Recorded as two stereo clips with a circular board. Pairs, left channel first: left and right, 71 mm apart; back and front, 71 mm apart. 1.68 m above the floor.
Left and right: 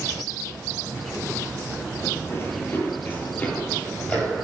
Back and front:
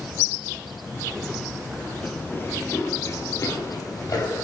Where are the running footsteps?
120° left, 2.5 m; by 4.4 s 160° left, 4 m.